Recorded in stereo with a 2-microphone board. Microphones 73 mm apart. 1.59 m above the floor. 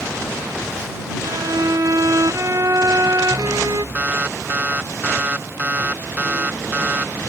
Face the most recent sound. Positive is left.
turn(degrees=-25)  # may be behind; listen again after turning